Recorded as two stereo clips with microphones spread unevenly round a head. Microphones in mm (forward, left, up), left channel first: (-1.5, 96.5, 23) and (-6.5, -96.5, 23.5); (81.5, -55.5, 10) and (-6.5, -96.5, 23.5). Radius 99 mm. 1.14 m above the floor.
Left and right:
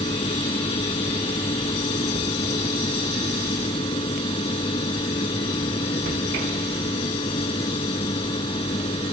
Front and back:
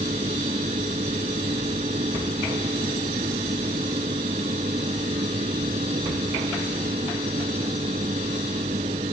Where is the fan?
155° left.